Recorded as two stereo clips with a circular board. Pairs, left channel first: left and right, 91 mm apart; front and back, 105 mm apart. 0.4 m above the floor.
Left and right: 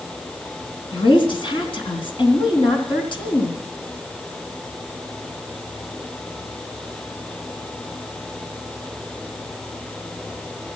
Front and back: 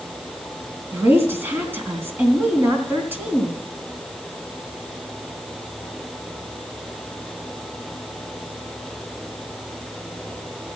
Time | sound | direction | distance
0.9 | a woman speaking | 110° left | 3 m